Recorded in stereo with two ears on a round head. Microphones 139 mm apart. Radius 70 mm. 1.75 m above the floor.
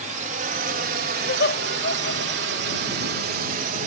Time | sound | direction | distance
0.0 | a drone | 45° right (ahead or behind) | ?
1.2 | laughter | 70° left (ahead or behind) | ?